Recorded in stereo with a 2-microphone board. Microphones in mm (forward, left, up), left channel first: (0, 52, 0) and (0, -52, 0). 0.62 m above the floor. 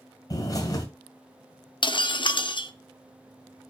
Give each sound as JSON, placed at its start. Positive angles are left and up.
{"t": 0.3, "sound": "a bird", "side_deg": 35, "distance_m": 2.0}
{"t": 1.8, "sound": "breaking glass", "side_deg": 50, "distance_m": 0.6}